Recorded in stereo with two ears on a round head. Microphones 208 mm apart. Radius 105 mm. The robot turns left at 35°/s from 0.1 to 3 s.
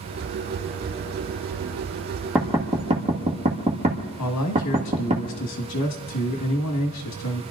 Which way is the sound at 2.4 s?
5° right (ahead or behind).